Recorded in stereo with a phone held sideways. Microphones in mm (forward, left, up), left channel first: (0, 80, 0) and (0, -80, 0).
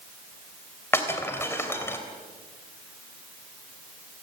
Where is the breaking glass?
15° left (ahead or behind), 3 m.